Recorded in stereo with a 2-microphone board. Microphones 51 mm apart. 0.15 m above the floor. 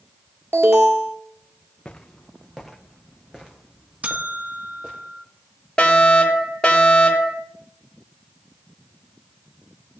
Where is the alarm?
60° right (ahead or behind), 1.7 m.